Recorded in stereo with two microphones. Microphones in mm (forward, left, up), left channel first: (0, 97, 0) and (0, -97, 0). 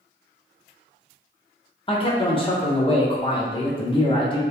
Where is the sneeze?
I don't hear a sneeze.